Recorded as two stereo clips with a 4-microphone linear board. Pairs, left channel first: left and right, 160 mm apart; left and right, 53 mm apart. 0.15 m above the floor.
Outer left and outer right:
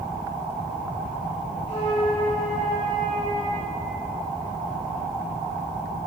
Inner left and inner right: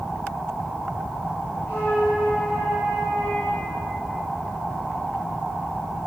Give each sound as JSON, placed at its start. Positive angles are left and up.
{"t": 1.7, "sound": "a flute", "side_deg": 40, "distance_m": 5.0}